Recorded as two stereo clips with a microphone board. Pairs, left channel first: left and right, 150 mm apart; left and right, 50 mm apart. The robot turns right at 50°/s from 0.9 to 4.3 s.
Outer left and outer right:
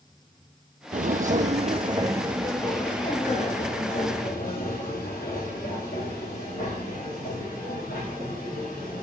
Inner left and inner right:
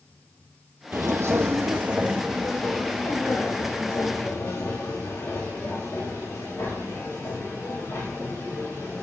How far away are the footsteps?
About 0.5 m.